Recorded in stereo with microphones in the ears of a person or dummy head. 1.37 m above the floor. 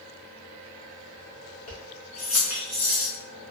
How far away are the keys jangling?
About 0.7 m.